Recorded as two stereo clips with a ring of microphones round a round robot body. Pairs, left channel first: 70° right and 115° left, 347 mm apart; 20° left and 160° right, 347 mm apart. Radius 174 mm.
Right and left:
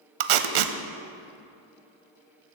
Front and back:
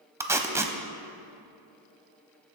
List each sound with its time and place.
0.2 s tape being pulled: 120° left, 0.8 m